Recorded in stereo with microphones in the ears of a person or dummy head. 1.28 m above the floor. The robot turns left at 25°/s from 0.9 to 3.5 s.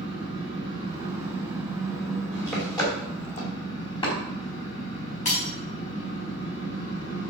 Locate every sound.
0.0 s an engine running: 150° right, 5 m; by 7.3 s 145° left, 5 m
2.8 s chopping: 10° left (ahead or behind), 4 m; by 4.1 s 30° left (ahead or behind), 4 m
5.2 s breaking glass: 40° left (ahead or behind), 5 m